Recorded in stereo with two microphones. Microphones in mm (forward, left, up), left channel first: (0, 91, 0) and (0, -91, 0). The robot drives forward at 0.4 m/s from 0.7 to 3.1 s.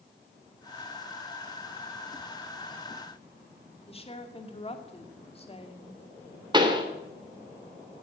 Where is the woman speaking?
30° left (ahead or behind), 2.5 m.